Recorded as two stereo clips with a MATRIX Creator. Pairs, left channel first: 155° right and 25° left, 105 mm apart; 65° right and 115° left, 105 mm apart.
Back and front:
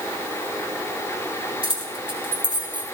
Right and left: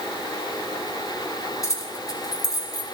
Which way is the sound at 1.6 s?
10° right.